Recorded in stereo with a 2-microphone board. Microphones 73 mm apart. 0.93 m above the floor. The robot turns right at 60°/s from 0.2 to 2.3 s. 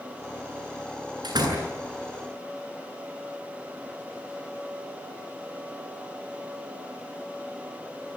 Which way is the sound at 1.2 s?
85° right.